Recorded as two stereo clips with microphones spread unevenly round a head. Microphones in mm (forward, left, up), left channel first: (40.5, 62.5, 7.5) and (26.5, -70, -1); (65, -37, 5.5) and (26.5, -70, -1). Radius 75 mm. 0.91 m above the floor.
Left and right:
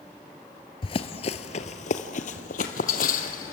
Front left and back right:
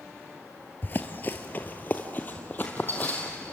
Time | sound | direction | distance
0.8 | running footsteps | 60° left | 1.2 m